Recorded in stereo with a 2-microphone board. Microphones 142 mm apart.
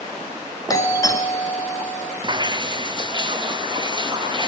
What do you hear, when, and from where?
0.7 s a doorbell: 25° left (ahead or behind), 2.5 m
2.2 s dripping: 30° right (ahead or behind), 1.2 m